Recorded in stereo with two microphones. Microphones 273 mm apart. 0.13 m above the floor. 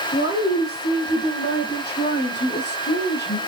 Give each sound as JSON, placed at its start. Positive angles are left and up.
{"t": 0.1, "sound": "a woman speaking", "side_deg": 40, "distance_m": 5.0}